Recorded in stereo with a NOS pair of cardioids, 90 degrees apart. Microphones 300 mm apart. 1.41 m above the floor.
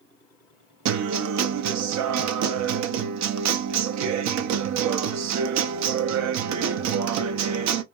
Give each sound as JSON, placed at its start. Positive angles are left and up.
{"t": 0.8, "sound": "a guitar", "azimuth_deg": -65, "distance_m": 0.5}